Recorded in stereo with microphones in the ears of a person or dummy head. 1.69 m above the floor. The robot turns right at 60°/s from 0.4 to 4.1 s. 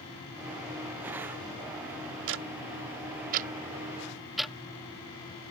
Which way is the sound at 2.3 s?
65° right (ahead or behind).